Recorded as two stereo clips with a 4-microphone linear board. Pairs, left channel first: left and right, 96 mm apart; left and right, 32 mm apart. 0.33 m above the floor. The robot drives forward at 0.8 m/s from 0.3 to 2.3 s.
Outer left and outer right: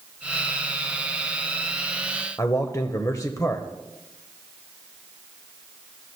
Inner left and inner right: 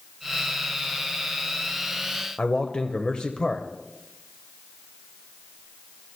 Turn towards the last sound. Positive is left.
turn(degrees=35)  # may be behind; listen again after turning